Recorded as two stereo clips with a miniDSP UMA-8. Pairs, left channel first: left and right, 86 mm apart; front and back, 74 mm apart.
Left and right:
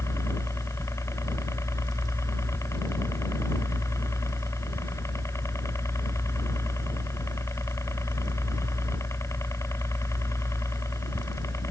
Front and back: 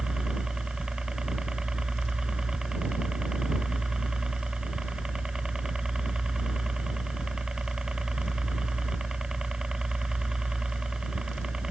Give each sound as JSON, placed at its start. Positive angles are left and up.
{"t": 0.0, "sound": "a helicopter", "azimuth_deg": 105}